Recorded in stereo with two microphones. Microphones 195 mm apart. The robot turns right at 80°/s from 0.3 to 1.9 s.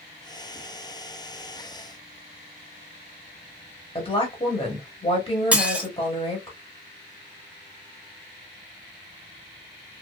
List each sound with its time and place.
4.0 s a woman speaking: 30° left (ahead or behind), 1.0 m
5.5 s dishes clattering: 5° right (ahead or behind), 0.6 m